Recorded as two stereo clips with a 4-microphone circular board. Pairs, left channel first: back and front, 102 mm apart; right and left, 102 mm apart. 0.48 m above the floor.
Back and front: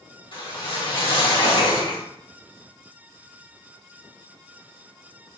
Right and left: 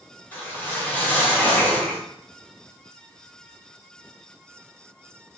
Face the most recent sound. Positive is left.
turn(degrees=-160)